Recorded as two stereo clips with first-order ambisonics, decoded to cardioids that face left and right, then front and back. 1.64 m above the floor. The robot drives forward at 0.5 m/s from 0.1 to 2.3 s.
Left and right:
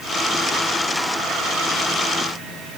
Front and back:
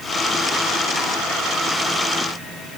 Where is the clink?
No clink in this recording.